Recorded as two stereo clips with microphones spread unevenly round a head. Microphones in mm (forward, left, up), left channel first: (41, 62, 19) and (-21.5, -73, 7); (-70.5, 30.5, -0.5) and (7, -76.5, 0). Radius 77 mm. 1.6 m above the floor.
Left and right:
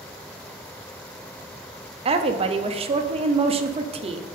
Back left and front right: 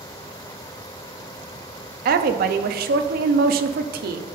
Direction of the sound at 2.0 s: 60° right.